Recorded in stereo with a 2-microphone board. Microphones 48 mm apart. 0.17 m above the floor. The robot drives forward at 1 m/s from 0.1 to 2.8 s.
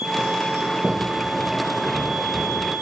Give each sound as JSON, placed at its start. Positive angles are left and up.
{"t": 0.6, "sound": "a sliding door", "side_deg": 0, "distance_m": 6.0}